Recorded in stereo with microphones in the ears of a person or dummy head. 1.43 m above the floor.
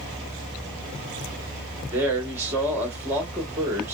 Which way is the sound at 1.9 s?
15° right (ahead or behind).